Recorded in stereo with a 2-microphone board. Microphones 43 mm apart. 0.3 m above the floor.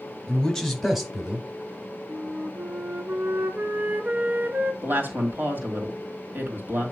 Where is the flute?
45° right (ahead or behind), 0.9 m.